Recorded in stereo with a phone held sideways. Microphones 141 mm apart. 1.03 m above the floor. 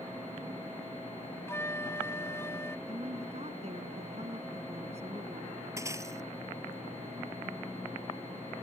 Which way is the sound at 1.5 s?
20° left (ahead or behind).